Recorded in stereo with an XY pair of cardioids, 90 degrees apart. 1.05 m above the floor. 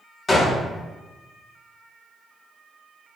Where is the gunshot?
30° left, 1.3 m.